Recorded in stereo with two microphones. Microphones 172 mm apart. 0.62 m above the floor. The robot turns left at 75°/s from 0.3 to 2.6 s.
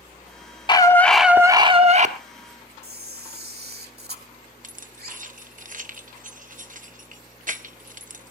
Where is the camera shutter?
65° right (ahead or behind), 1.5 m.